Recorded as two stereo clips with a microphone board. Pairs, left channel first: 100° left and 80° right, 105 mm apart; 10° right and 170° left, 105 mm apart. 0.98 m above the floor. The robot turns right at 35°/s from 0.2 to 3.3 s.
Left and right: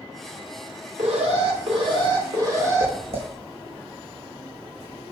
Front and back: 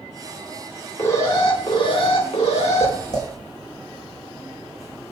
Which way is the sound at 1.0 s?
80° right.